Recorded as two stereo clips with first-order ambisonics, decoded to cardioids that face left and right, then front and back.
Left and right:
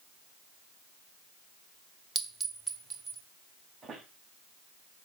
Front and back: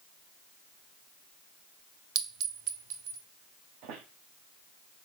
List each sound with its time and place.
2.1 s a clink: 165° right, 0.9 m
3.8 s a squeak: 160° right, 1.1 m